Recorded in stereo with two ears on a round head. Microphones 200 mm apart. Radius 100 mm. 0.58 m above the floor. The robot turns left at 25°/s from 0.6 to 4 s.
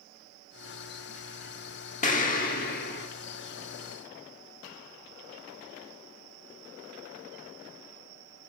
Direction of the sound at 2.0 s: 35° left (ahead or behind).